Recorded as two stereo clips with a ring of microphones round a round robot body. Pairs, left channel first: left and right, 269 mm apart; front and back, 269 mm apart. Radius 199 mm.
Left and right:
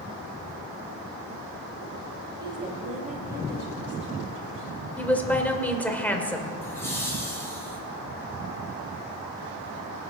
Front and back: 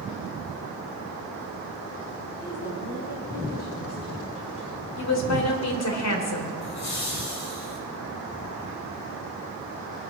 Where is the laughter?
10° left, 5.5 m.